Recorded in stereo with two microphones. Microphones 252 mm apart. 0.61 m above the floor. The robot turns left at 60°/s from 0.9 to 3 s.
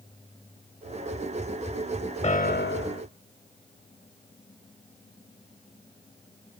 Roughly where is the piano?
Behind left.